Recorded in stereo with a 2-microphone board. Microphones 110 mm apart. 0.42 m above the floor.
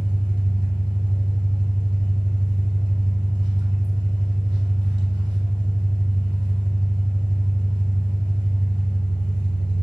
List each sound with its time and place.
0.0 s an engine running: 45° right (ahead or behind), 0.9 m